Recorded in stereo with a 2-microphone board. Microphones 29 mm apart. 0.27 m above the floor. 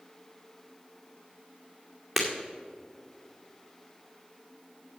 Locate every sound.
2.2 s breaking glass: 5° right (ahead or behind), 2.5 m